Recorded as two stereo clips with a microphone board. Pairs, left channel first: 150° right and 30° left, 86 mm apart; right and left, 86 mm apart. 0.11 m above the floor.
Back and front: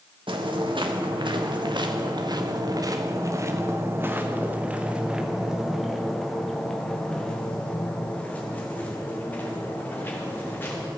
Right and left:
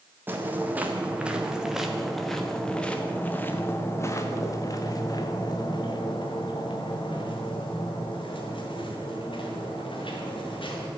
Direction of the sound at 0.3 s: 20° left.